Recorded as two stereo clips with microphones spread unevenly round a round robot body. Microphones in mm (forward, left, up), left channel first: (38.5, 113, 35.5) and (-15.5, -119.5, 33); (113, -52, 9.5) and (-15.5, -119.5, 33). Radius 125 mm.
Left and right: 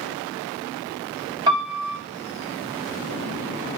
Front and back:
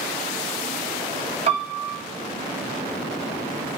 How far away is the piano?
About 0.8 m.